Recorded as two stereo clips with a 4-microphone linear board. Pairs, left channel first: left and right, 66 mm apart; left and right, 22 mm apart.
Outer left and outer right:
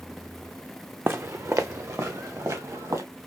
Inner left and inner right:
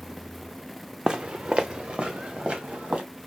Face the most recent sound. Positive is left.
turn(degrees=-60)  # may be behind; listen again after turning